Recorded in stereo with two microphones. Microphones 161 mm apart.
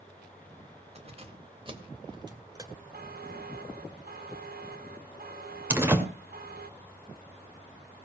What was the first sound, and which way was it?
Keys jangling, 40° right (ahead or behind).